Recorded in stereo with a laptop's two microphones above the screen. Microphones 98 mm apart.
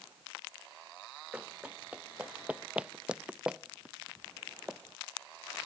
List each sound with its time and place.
1.3 s running footsteps: 15° right (ahead or behind); by 4.8 s 5° right (ahead or behind)